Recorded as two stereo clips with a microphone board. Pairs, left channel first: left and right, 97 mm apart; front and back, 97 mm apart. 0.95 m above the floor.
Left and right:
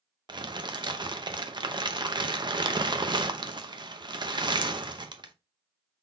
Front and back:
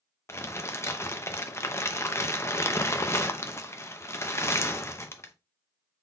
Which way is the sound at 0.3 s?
55° right.